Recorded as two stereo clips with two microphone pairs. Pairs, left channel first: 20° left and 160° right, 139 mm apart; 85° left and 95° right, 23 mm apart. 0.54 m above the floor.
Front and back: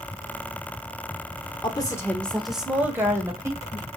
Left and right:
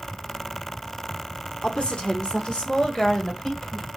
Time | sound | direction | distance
1.6 | a woman speaking | 70° left | 1.1 m